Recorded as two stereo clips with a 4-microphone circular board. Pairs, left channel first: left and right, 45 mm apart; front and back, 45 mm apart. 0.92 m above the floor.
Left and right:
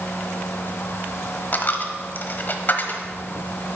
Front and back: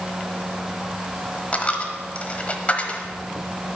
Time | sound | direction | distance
1.5 | a dropped coin | 55° left | 1.1 m